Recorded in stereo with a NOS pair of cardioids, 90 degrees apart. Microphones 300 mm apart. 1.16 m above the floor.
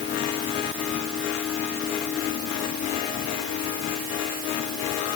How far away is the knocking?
No knocking in this recording.